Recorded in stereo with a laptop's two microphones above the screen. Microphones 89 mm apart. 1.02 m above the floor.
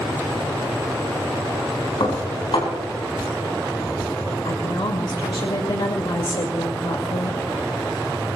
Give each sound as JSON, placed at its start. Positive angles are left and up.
{"t": 2.0, "sound": "dishes clattering", "side_deg": 70, "distance_m": 5.0}
{"t": 4.5, "sound": "a woman speaking", "side_deg": 70, "distance_m": 2.0}